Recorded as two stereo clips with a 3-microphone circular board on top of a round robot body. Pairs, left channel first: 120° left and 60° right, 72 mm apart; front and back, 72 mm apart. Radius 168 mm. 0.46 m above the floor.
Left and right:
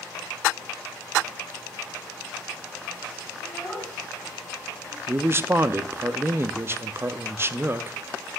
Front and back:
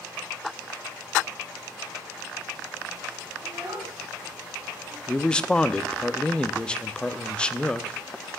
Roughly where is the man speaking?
Ahead right.